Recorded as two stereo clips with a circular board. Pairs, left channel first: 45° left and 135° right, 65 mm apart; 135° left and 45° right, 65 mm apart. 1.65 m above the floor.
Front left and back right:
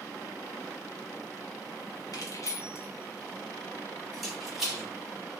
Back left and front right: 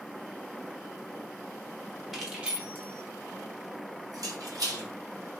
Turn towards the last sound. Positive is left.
turn(degrees=-65)